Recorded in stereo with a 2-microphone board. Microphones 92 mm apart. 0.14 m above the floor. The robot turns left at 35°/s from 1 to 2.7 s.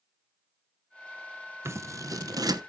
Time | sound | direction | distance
1.6 | scissors | 30° right (ahead or behind) | 0.9 m